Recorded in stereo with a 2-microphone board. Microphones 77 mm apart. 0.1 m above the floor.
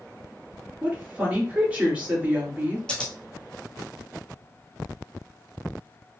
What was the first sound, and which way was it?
A woman speaking, 15° right (ahead or behind).